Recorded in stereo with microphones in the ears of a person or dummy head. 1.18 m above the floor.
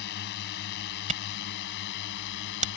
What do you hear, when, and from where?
0.0 s a drone: 60° left (ahead or behind); by 2.8 s 65° left (ahead or behind)
1.1 s a camera shutter: 40° right (ahead or behind)